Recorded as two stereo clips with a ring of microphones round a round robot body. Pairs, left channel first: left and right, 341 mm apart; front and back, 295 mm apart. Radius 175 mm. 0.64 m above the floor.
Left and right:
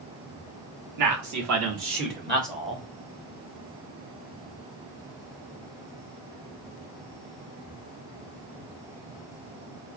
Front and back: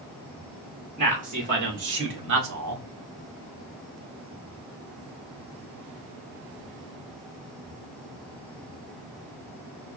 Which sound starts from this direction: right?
A man speaking, at 1.0 s.